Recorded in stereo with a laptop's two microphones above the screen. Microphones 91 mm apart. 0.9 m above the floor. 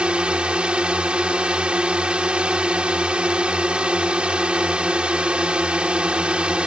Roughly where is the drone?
Centre.